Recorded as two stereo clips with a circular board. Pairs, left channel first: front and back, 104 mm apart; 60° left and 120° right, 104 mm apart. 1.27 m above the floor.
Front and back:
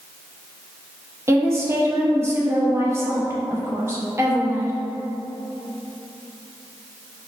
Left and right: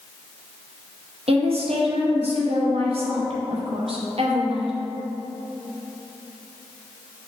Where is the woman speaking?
115° right, 0.6 m.